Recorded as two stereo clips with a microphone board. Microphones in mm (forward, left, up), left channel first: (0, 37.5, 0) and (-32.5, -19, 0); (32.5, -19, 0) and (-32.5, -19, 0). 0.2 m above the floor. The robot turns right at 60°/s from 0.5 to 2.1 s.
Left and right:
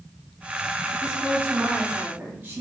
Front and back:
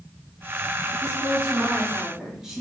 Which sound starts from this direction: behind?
A woman speaking, at 1.0 s.